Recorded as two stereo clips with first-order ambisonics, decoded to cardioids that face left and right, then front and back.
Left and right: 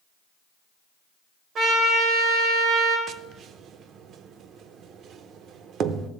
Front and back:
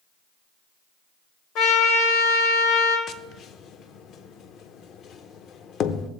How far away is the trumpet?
About 2 m.